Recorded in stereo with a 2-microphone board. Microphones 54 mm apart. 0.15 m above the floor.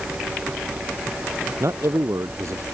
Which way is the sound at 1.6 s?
65° right (ahead or behind).